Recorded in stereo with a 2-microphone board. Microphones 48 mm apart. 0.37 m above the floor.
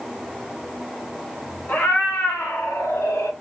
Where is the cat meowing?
40° left (ahead or behind), 0.9 m; by 3.3 s 75° left (ahead or behind), 0.9 m.